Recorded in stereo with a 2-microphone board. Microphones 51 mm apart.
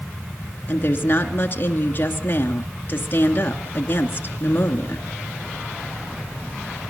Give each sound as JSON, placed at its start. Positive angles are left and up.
{"t": 0.7, "sound": "a woman speaking", "side_deg": 40, "distance_m": 2.0}